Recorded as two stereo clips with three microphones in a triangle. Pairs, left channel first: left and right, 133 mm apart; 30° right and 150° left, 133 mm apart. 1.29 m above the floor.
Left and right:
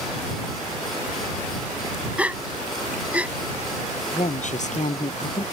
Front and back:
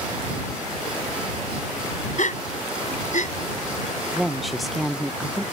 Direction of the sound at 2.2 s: 10° right.